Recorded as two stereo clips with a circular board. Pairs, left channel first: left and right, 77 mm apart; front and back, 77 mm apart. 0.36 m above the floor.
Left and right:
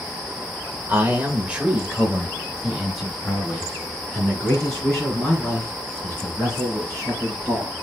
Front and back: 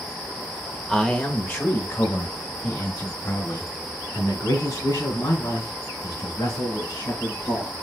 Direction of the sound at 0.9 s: 70° right.